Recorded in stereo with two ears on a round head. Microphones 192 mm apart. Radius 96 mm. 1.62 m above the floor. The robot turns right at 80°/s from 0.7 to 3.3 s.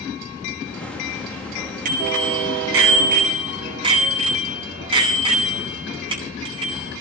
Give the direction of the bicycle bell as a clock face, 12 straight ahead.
5 o'clock.